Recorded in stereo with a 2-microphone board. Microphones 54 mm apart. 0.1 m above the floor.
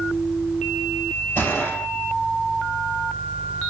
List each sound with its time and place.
1.4 s a gunshot: 50° left (ahead or behind), 2.5 m